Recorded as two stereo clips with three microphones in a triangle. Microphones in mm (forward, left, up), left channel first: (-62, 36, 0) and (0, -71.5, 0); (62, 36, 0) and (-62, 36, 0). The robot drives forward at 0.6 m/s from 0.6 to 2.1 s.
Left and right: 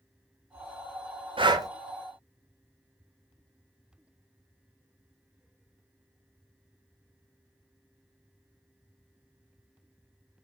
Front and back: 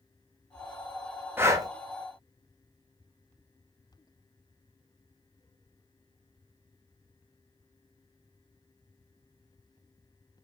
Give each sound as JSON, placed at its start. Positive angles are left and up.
{"t": 1.4, "sound": "breathing", "azimuth_deg": -110, "distance_m": 0.6}